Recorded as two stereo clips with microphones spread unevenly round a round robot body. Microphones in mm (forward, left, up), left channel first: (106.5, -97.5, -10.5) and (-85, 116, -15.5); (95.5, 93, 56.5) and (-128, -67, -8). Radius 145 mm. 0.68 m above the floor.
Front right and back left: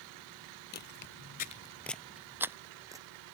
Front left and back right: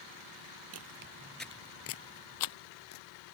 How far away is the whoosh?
No whoosh in this recording.